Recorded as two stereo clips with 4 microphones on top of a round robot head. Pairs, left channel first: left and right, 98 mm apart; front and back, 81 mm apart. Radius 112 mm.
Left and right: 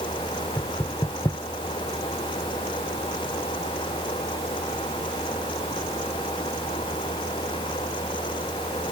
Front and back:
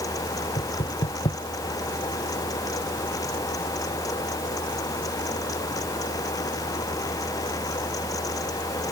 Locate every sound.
0.6 s knocking: 20° left